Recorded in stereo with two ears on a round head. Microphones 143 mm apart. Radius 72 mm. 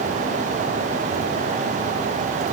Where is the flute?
I don't hear a flute.